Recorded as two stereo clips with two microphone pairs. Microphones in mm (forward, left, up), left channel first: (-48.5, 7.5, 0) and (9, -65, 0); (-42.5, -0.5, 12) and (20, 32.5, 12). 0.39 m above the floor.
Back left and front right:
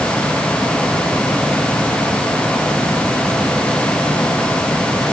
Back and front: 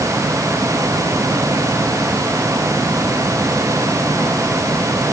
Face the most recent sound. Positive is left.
No sound to turn to.